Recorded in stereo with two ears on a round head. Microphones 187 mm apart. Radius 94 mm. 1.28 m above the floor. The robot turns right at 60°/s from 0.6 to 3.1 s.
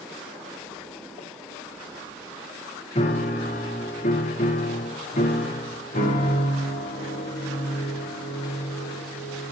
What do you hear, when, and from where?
3.0 s a piano: 30° left (ahead or behind), 1.2 m; by 9.5 s 35° left (ahead or behind), 1.2 m